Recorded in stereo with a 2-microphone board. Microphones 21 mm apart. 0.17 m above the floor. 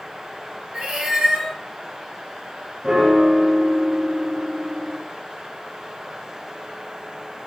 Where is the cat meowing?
45° right (ahead or behind), 1.0 m.